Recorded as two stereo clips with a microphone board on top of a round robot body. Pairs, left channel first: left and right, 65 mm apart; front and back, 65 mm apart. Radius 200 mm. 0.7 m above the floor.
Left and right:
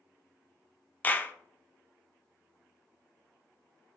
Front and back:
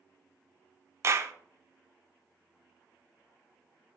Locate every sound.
1.0 s a clap: 150° left, 0.6 m